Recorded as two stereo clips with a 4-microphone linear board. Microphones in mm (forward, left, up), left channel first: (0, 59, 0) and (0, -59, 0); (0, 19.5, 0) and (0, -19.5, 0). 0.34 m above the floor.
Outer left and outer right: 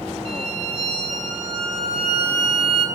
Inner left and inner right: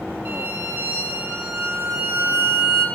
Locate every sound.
0.2 s a violin: 60° right (ahead or behind), 1.5 m